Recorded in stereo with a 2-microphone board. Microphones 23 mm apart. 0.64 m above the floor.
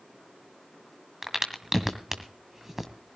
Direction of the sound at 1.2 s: 15° right (ahead or behind).